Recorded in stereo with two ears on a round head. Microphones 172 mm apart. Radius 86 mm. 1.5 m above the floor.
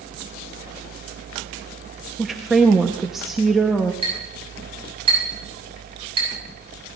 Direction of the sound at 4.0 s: 30° right (ahead or behind).